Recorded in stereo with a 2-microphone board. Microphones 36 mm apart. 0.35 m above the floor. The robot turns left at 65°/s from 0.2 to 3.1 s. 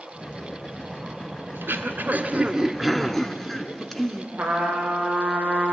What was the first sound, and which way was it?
Throat clearing, 90° right.